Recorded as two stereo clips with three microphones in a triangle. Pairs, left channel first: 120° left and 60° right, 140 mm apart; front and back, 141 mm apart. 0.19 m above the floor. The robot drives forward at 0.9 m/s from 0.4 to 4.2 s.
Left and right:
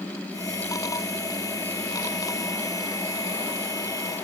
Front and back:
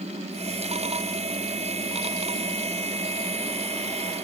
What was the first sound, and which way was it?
Only background noise.